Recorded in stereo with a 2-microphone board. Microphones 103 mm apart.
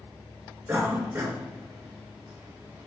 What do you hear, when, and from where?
0.7 s a cough: 25° right (ahead or behind), 1.9 m